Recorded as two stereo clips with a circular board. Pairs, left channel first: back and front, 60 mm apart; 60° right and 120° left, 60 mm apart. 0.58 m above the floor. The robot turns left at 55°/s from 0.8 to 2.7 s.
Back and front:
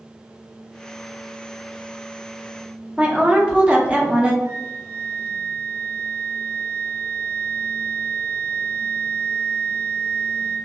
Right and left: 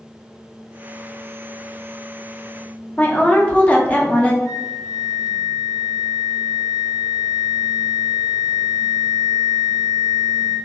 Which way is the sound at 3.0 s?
35° right.